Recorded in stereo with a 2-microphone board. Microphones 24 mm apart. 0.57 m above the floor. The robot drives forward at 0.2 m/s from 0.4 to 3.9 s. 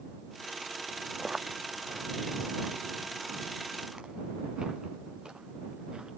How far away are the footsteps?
About 1.3 m.